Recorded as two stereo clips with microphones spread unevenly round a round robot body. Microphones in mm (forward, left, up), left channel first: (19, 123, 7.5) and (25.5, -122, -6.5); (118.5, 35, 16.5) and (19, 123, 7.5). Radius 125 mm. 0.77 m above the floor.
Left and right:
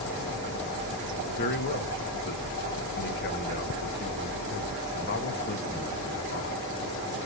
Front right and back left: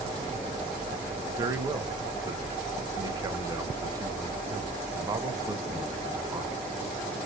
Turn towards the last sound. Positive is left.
turn(degrees=100)